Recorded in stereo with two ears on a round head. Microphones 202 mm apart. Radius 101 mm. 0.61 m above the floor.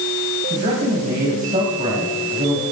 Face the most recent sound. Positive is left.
turn(degrees=-35)  # may be behind; listen again after turning